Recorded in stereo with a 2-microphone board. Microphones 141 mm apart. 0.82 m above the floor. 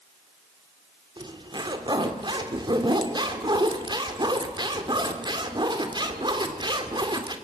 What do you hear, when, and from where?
1.2 s a zipper: 30° right (ahead or behind), 2 m